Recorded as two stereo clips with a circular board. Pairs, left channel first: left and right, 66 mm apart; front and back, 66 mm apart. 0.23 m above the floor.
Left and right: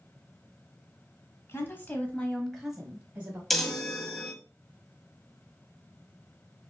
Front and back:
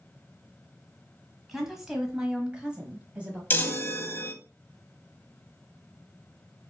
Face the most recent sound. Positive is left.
turn(degrees=5)